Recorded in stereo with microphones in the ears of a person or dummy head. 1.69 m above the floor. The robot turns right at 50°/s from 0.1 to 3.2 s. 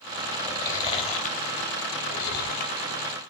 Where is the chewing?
10° left (ahead or behind), 2.5 m; by 2.9 s 35° left (ahead or behind), 2.5 m.